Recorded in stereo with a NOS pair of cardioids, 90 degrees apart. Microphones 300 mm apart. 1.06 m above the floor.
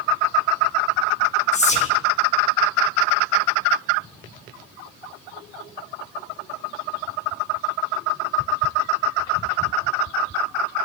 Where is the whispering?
25° left, 1.5 m.